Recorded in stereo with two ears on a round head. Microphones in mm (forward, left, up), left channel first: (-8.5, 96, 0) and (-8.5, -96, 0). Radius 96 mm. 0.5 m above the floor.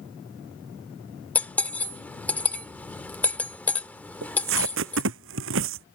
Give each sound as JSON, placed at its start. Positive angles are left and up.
{"t": 1.4, "sound": "cutlery clinking", "side_deg": 5}
{"t": 4.2, "sound": "tape being pulled", "side_deg": -60}